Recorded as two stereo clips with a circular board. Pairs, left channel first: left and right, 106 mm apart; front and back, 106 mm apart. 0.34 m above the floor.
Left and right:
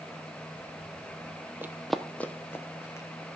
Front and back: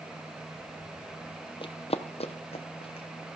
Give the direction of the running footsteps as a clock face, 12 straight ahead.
1 o'clock.